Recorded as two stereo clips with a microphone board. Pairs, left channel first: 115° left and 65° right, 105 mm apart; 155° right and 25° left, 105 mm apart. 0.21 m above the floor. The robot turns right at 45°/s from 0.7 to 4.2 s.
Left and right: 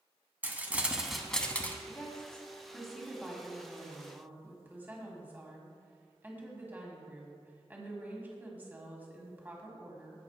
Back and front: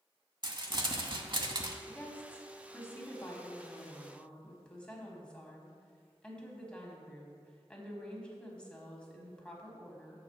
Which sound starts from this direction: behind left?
A woman speaking, at 1.9 s.